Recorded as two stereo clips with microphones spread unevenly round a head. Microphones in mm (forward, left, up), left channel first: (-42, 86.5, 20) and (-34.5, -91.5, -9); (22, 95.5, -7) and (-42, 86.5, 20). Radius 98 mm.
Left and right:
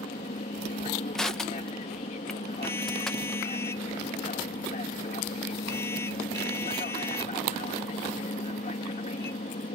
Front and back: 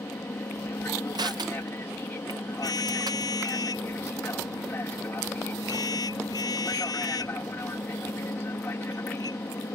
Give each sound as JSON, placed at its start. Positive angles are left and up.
{"t": 0.0, "sound": "an aircraft", "azimuth_deg": 45}
{"t": 1.1, "sound": "crushing", "azimuth_deg": -175}
{"t": 2.6, "sound": "a car horn", "azimuth_deg": 15}